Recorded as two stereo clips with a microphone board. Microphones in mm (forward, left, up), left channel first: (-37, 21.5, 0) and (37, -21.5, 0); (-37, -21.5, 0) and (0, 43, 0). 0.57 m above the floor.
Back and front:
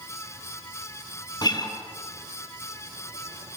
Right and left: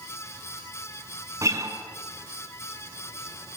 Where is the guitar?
110° left, 4 m.